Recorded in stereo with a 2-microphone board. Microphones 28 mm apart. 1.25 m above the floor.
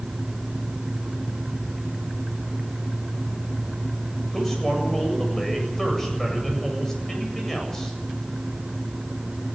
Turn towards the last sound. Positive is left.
turn(degrees=15)  # may be behind; listen again after turning